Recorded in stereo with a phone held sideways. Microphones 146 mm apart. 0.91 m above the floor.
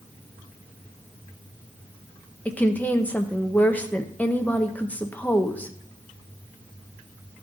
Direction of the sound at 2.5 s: 10° left (ahead or behind).